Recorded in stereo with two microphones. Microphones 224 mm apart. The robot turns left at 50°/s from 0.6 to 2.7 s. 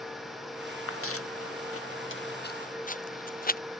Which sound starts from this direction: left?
Footsteps, at 0.9 s.